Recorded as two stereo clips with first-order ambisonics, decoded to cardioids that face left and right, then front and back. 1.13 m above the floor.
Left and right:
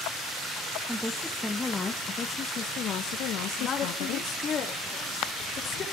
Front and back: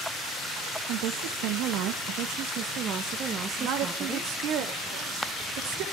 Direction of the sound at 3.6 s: 150° left.